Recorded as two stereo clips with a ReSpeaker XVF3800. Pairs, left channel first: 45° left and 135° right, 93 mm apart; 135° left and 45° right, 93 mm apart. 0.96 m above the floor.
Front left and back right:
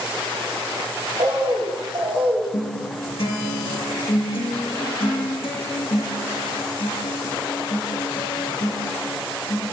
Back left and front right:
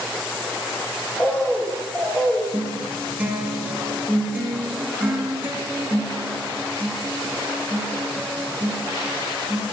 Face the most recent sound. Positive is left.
turn(degrees=25)